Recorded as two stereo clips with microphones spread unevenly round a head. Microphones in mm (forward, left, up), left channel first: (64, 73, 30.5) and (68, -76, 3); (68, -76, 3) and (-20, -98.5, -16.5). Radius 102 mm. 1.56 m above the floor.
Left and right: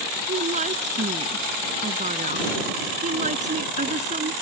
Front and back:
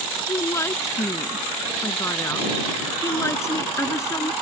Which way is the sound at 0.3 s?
45° right.